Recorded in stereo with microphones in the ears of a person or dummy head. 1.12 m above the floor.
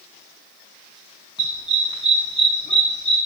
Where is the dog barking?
25° left (ahead or behind), 3 m; by 3.2 s 40° left (ahead or behind), 3.5 m.